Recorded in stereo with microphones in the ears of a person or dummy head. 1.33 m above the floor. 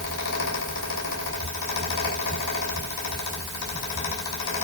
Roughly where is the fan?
Left.